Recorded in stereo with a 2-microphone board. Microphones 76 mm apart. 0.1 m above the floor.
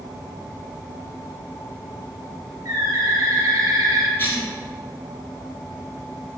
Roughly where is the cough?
Left.